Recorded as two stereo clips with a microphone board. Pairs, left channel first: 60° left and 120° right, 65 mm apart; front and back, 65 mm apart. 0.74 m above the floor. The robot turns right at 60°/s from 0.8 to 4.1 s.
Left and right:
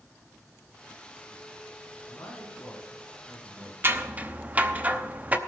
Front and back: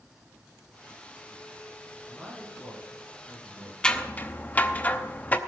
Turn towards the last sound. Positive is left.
turn(degrees=-60)